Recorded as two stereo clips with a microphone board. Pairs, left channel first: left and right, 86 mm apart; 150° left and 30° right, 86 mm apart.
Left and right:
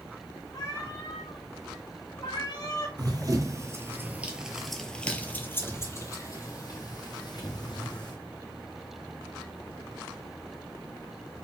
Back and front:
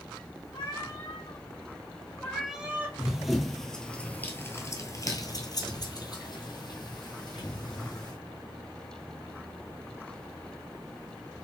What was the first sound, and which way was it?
A cat meowing, 130° left.